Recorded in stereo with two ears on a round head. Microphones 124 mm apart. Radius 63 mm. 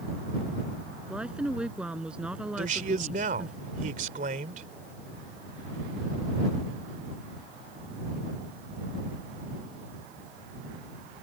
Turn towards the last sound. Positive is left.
turn(degrees=-65)  # may be behind; listen again after turning